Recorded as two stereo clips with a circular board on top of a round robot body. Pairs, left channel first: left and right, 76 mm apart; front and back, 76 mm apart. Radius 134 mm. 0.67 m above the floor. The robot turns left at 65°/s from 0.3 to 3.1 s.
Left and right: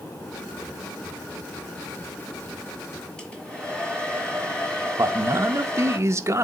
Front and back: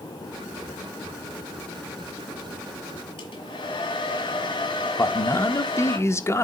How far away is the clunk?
No clunk in this recording.